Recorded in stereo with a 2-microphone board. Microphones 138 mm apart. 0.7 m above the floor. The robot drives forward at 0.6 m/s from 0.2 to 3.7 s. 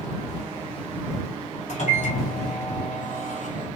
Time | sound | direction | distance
1.7 | a microwave | 60° left (ahead or behind) | 2.5 m